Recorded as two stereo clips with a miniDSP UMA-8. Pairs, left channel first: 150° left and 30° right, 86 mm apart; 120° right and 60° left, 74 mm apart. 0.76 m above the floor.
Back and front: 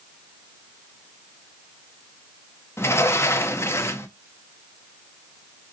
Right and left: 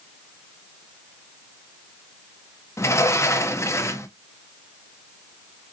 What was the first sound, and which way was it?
A sliding door, 160° right.